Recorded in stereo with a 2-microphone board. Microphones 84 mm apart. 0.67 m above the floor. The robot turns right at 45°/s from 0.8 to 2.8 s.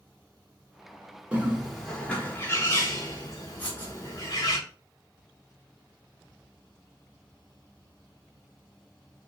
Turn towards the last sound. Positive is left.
turn(degrees=20)  # may be behind; listen again after turning